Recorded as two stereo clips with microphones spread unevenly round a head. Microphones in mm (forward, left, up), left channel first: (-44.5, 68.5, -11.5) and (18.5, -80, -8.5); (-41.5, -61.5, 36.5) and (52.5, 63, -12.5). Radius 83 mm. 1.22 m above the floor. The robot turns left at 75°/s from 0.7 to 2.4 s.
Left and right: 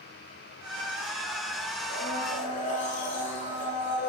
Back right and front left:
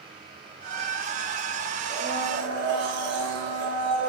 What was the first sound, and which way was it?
A blender, 105° left.